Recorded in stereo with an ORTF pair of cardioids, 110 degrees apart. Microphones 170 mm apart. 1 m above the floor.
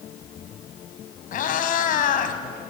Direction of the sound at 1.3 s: 55° left.